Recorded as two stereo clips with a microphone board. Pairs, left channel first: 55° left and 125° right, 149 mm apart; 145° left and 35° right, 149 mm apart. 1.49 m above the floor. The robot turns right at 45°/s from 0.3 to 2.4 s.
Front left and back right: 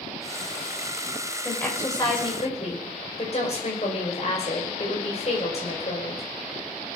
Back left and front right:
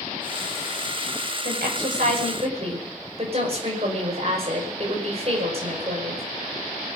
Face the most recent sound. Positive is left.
turn(degrees=10)